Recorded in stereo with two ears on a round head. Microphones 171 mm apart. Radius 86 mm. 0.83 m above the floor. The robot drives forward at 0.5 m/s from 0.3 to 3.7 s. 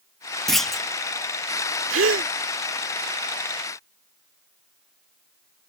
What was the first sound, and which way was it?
A clunk, centre (ahead or behind).